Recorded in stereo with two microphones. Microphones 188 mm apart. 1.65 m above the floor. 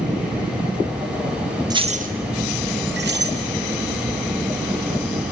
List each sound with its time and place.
1.7 s keys jangling: 20° right (ahead or behind), 0.9 m; by 3.4 s 65° right (ahead or behind), 2.5 m